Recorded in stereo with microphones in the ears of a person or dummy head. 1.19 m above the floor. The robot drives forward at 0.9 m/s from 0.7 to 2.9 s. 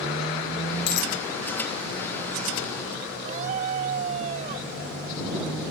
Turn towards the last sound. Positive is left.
turn(degrees=-40)  # may be behind; listen again after turning